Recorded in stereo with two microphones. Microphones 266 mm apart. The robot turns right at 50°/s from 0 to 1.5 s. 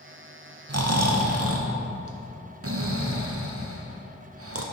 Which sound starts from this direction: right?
Snoring, at 0.7 s.